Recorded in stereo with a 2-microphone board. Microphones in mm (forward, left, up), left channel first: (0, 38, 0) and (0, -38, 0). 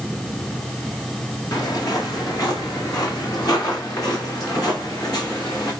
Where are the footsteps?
55° left (ahead or behind), 3 m; by 5.7 s 50° left (ahead or behind), 5 m.